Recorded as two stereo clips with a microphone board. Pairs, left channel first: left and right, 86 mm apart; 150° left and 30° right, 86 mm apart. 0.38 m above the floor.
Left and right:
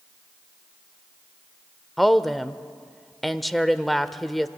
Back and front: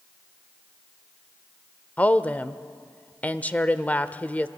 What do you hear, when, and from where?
2.0 s a woman speaking: straight behind, 0.8 m